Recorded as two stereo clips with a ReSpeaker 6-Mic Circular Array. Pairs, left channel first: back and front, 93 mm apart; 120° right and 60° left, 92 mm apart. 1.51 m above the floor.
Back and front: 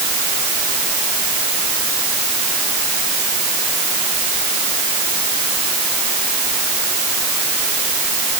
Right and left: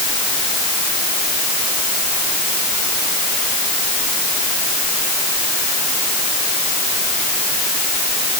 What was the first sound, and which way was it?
Only background noise.